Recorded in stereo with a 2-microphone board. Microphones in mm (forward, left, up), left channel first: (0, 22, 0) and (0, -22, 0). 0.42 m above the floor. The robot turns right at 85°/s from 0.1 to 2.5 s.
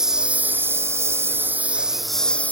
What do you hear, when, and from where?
0.0 s a lawn mower: 165° right; by 2.5 s 40° left